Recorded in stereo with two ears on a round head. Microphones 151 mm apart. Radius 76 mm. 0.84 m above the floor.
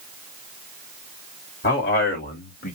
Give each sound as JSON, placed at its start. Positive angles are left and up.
{"t": 1.6, "sound": "a man speaking", "side_deg": 55, "distance_m": 2.0}